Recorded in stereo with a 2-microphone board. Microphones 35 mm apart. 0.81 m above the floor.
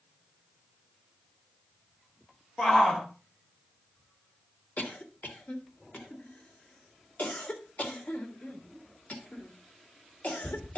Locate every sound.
2.6 s a shout: 20° left (ahead or behind), 2 m
4.8 s a cough: 55° left (ahead or behind), 1.7 m